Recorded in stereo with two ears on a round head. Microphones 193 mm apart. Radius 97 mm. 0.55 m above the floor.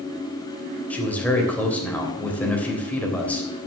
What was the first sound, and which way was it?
A man speaking, 5° left (ahead or behind).